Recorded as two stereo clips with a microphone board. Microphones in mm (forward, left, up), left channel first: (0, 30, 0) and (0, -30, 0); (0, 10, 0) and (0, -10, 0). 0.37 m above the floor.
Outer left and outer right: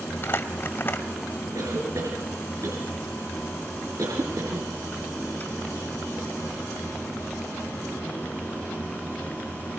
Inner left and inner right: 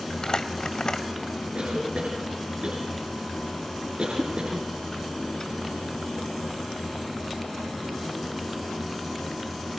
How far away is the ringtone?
I don't hear a ringtone.